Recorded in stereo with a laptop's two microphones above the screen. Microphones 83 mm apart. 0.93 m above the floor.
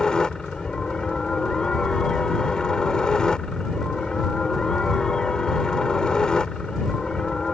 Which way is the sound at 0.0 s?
10° left (ahead or behind).